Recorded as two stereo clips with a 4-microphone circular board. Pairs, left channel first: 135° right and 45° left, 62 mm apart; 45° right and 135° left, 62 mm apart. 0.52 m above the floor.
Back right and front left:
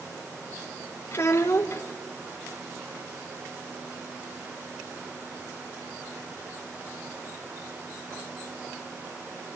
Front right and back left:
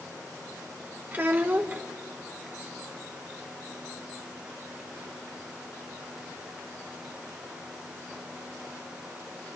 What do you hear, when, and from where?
1.1 s a child speaking: 170° right, 1.1 m